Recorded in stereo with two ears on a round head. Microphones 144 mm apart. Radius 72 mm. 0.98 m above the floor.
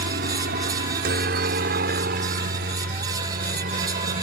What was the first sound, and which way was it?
A helicopter, 65° right (ahead or behind).